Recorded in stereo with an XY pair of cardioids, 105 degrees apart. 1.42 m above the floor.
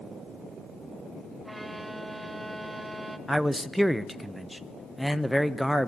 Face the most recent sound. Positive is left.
turn(degrees=0)